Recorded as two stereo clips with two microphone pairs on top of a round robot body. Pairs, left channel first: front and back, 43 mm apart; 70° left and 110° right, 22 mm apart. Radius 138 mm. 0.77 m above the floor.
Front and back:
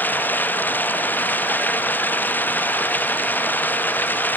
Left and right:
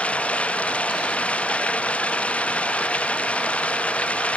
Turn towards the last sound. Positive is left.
turn(degrees=50)